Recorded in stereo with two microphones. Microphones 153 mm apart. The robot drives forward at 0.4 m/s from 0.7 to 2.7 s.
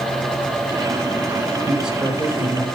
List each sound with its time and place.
1.6 s a man speaking: 5° right (ahead or behind), 6 m